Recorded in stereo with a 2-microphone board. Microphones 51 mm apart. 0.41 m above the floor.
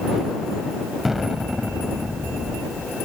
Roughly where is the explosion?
Centre.